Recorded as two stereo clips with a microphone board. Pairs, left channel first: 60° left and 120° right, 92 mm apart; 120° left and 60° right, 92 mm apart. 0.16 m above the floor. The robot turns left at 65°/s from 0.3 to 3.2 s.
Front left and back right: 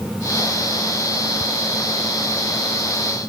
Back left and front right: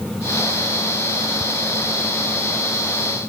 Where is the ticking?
Straight behind; by 1.4 s 175° left.